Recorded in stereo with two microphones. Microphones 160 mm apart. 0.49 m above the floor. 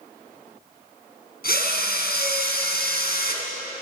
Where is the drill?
75° left (ahead or behind), 3.5 m.